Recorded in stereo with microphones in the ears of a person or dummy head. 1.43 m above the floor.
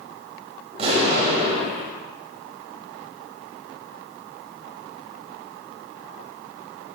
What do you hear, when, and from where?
0.7 s an explosion: 35° right (ahead or behind), 1.9 m